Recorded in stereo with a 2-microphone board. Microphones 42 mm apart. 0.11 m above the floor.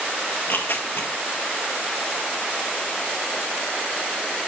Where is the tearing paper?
60° left (ahead or behind), 0.9 m.